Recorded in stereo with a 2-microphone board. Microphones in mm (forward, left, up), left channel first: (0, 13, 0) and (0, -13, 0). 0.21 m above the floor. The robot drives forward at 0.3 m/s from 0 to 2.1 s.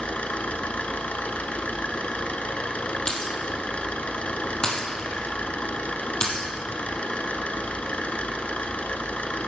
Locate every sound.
0.0 s an engine running: 60° left (ahead or behind), 1.1 m; by 9.5 s 65° left (ahead or behind), 1.1 m
3.1 s breaking glass: 30° left (ahead or behind), 2 m